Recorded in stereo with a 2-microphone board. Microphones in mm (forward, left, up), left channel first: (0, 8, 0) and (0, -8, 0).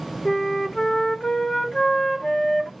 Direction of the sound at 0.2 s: 35° left (ahead or behind).